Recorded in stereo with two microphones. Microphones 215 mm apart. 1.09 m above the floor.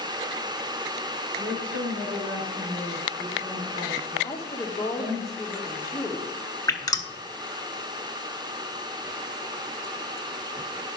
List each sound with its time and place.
1.4 s a woman speaking: 85° right, 3 m
4.2 s a woman speaking: 15° left (ahead or behind), 1.4 m
6.7 s dripping: 20° left (ahead or behind), 0.9 m